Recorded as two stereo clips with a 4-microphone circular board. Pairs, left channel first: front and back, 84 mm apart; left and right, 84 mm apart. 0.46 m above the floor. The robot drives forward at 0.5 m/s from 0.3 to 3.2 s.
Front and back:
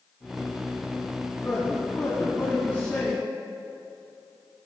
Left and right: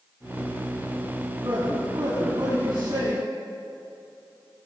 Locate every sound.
1.4 s a man speaking: 60° right, 3.5 m; by 3.2 s 75° right, 3 m